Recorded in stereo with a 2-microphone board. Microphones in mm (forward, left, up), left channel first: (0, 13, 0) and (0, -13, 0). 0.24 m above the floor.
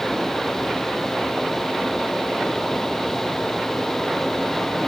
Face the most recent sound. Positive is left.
No sound to turn to.